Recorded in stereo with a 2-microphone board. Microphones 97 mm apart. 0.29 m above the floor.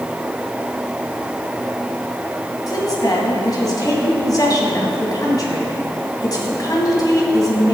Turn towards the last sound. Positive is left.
turn(degrees=40)  # may be behind; listen again after turning